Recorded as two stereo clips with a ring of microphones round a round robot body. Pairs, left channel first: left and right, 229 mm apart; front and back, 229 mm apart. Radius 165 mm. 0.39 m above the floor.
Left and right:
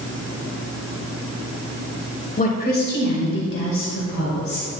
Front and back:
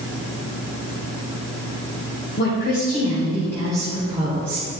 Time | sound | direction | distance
2.4 | a woman speaking | 40° left | 1.9 m